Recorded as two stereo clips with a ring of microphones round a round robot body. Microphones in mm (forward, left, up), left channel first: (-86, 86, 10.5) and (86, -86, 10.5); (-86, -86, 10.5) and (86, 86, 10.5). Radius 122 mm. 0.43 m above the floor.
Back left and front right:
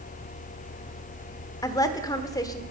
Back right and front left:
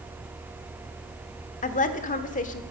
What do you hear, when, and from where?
1.6 s a woman speaking: 160° right, 1.2 m